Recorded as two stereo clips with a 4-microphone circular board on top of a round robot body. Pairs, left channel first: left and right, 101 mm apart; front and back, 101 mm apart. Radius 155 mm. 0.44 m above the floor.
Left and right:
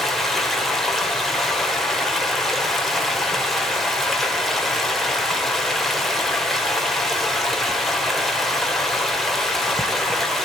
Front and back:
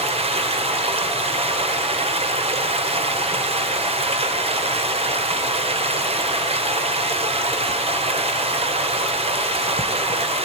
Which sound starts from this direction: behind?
Running water, at 0.0 s.